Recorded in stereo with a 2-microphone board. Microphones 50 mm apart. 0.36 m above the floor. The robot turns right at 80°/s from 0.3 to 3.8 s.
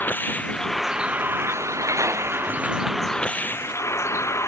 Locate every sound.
0.0 s a vehicle: 40° left (ahead or behind); by 4.5 s 70° left (ahead or behind)